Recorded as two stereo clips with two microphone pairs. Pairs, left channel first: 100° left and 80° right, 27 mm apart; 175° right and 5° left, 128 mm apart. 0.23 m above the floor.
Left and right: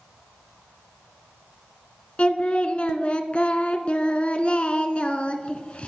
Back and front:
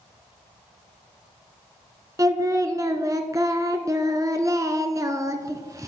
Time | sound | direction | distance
2.2 | singing | 65° left | 0.9 m